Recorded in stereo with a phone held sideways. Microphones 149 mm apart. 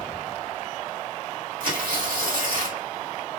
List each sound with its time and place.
1.6 s tearing paper: 80° right, 2 m